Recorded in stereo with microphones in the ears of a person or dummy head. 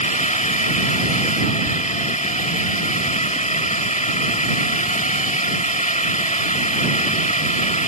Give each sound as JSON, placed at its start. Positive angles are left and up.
{"t": 0.0, "sound": "a drone", "side_deg": 30}